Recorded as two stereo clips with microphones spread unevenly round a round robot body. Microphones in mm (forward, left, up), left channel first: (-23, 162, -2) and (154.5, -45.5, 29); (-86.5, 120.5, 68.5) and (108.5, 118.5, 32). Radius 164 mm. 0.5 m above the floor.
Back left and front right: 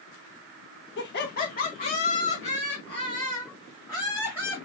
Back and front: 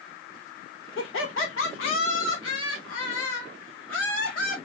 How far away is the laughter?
About 1.4 m.